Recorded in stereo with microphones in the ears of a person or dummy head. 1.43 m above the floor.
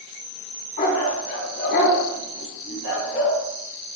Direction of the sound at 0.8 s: 45° left (ahead or behind).